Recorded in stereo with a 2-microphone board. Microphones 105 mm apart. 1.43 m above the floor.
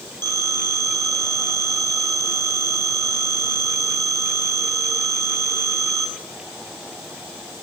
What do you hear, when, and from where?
0.2 s a phone ringing: 45° right (ahead or behind), 7 m